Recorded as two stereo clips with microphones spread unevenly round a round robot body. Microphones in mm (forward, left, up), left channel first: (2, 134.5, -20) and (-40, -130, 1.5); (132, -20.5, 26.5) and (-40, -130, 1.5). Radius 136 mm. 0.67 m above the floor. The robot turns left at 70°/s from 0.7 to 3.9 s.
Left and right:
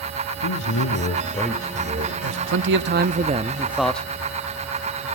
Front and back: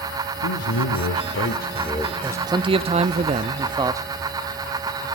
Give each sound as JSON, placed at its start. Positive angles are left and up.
{"t": 0.4, "sound": "a man speaking", "azimuth_deg": 50, "distance_m": 1.9}
{"t": 2.2, "sound": "a man speaking", "azimuth_deg": -85, "distance_m": 0.7}